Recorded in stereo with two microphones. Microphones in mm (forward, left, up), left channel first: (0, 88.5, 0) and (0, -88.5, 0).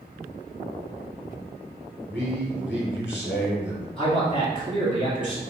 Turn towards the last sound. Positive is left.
turn(degrees=30)  # may be behind; listen again after turning